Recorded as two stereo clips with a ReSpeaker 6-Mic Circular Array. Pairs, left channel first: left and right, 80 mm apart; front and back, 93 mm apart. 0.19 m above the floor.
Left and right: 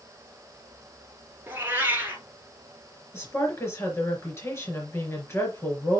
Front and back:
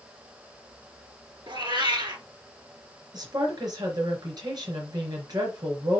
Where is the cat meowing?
150° right, 1.7 m.